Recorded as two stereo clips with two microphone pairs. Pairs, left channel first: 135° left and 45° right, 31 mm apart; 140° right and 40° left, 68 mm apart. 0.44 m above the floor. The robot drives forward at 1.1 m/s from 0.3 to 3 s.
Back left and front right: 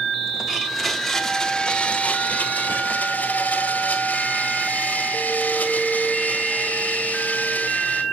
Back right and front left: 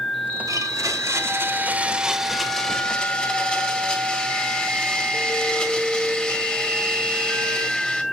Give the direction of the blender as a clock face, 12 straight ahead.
11 o'clock.